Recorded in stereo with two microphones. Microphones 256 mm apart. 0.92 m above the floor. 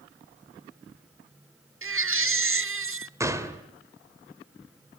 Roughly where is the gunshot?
Centre.